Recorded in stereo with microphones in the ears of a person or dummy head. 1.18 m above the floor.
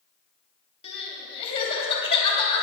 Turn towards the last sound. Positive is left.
turn(degrees=30)  # may be behind; listen again after turning